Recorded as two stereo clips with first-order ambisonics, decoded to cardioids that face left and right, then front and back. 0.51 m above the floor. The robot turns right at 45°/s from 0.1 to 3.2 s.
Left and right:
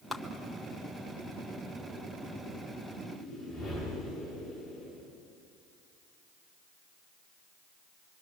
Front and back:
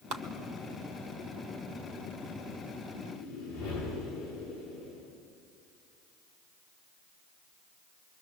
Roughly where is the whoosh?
Ahead.